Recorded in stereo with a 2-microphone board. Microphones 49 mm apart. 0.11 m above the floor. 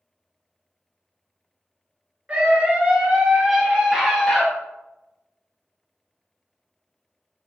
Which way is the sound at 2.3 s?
30° right (ahead or behind).